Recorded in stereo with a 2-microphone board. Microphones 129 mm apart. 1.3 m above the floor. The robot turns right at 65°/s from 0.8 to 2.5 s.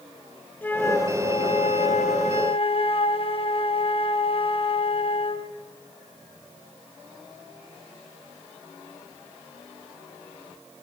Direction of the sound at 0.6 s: 15° left.